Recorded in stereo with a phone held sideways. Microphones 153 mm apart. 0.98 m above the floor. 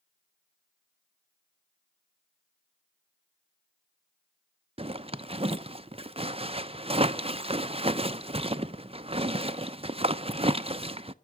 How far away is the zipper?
About 0.7 m.